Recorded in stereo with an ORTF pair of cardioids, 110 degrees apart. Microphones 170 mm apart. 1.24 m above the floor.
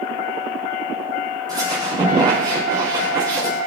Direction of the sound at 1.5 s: 25° right.